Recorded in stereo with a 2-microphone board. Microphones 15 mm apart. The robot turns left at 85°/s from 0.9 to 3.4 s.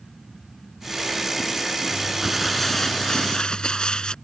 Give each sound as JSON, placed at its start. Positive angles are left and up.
{"t": 1.9, "sound": "crumpling", "azimuth_deg": -145}